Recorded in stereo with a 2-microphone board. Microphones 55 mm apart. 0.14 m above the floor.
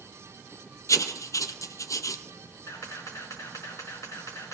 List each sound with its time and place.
0.9 s writing: 80° left, 0.6 m
2.7 s a camera shutter: 75° left (ahead or behind), 5 m